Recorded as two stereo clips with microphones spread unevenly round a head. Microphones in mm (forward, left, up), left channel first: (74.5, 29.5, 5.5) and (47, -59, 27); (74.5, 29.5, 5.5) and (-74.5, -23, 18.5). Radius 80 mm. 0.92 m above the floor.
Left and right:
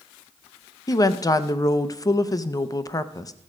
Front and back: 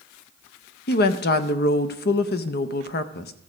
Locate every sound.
0.9 s a woman speaking: 30° left, 0.7 m